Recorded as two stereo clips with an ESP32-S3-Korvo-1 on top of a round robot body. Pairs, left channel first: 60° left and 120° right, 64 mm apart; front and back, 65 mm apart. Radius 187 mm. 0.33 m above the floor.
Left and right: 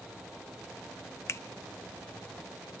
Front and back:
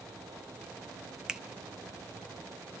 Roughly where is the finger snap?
Left.